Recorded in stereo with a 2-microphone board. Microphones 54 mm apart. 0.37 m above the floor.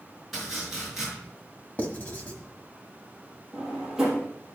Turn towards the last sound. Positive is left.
turn(degrees=-5)  # may be behind; listen again after turning